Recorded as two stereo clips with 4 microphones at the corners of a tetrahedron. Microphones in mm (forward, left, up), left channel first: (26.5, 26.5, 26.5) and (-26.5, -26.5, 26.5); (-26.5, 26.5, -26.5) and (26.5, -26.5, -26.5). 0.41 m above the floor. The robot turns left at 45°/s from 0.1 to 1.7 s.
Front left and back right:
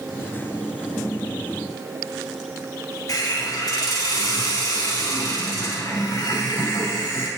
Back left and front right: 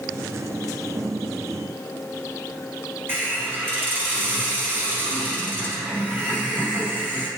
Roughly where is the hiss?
Ahead.